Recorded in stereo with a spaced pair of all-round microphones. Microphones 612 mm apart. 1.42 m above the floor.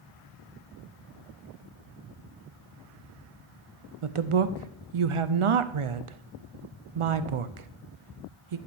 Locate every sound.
4.0 s a woman speaking: 60° right (ahead or behind), 0.5 m